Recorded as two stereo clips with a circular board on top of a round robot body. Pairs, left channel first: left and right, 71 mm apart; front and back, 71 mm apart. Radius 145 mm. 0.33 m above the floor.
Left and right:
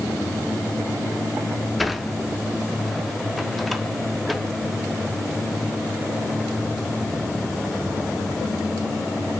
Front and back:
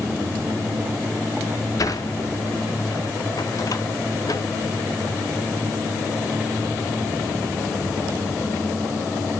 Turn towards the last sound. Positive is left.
turn(degrees=0)